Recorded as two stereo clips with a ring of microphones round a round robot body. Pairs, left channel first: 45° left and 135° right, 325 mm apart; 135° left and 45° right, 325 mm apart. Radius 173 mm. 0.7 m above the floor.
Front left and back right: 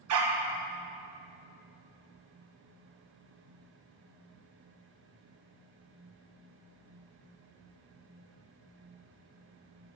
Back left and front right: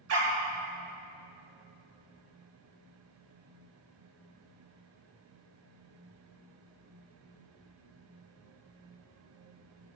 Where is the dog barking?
95° right, 1.8 m.